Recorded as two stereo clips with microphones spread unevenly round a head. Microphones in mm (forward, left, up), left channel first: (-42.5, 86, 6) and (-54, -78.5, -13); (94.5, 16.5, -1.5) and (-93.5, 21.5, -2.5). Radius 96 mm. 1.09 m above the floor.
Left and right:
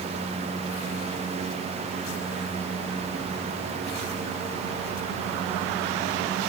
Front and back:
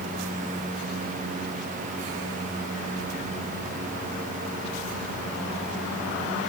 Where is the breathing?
I don't hear breathing.